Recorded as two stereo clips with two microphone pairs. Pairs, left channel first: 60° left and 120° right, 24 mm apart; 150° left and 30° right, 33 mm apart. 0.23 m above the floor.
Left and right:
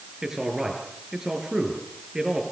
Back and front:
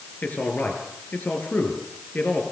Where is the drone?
I don't hear a drone.